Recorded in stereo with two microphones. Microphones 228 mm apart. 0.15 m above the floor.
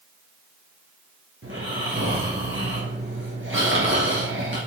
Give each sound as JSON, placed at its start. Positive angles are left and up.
{"t": 1.4, "sound": "snoring", "side_deg": -60, "distance_m": 3.0}